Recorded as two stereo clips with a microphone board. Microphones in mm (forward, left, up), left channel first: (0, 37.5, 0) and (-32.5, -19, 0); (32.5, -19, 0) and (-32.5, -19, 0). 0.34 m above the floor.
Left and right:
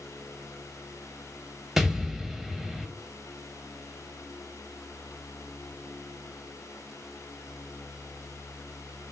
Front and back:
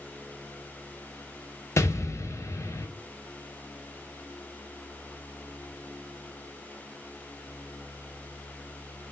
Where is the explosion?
35° right, 0.5 m.